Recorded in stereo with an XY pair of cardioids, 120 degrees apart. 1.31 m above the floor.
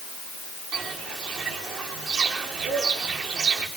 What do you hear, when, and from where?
0.7 s footsteps: 65° right, 7.5 m